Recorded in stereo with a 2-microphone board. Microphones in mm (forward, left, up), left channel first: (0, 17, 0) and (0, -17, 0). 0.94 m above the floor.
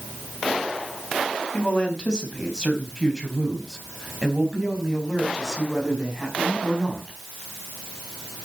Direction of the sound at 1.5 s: 25° left (ahead or behind).